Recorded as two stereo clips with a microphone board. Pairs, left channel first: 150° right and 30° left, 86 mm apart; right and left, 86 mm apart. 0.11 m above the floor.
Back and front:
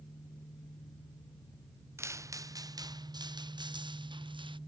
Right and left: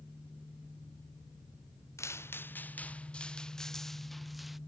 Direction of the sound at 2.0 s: 30° right.